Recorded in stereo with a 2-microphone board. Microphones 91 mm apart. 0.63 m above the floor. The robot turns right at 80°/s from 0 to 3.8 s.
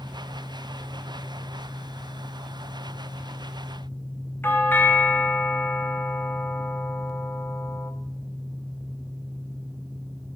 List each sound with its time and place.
4.4 s a doorbell: 20° left (ahead or behind), 1.7 m